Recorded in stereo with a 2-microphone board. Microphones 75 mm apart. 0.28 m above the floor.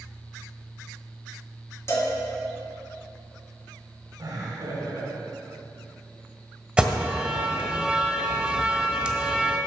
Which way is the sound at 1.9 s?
35° left (ahead or behind).